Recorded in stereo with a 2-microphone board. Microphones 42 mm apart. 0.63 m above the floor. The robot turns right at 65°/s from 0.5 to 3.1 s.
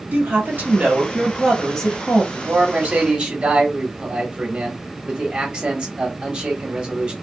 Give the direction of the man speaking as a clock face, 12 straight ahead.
3 o'clock.